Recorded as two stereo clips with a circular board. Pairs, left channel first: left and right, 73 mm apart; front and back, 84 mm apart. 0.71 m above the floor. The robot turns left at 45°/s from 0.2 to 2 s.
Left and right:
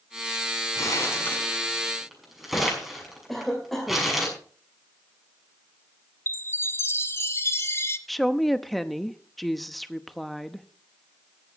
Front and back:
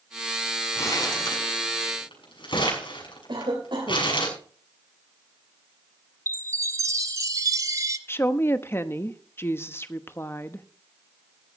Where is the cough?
Straight behind, 3 m.